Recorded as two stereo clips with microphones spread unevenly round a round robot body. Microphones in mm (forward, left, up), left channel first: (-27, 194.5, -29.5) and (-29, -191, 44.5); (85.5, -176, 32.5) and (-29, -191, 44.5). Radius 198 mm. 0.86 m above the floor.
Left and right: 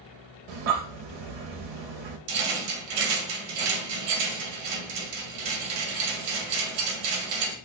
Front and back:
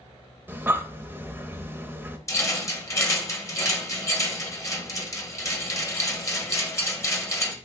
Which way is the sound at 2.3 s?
60° right.